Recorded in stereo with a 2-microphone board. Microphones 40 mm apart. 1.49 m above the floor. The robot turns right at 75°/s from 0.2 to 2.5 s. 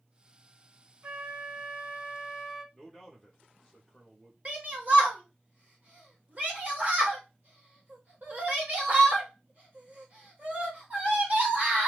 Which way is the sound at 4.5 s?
40° right (ahead or behind).